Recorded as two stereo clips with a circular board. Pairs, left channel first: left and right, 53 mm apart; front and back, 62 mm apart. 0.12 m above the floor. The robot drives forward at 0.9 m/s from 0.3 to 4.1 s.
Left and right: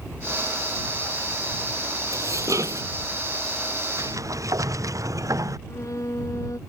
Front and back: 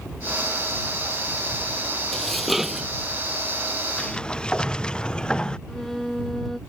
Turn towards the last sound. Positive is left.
turn(degrees=85)